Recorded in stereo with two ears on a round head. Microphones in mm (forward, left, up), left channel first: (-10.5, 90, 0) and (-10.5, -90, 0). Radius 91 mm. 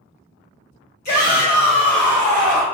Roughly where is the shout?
Left.